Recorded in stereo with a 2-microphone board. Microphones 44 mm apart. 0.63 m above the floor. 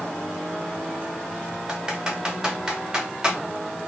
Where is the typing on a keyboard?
15° right (ahead or behind), 1.0 m.